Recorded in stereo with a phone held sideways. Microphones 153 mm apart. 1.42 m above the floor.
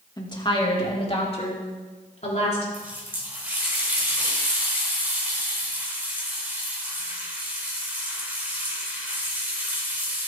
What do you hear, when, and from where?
0.2 s a woman speaking: 30° left (ahead or behind), 2 m; by 2.6 s 50° left (ahead or behind), 4.5 m
2.7 s a running tap: 10° right (ahead or behind), 3.5 m